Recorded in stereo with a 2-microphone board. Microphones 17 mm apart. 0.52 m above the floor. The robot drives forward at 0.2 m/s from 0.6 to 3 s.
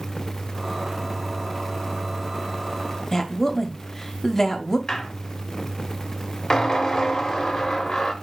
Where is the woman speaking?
20° left (ahead or behind), 0.7 m.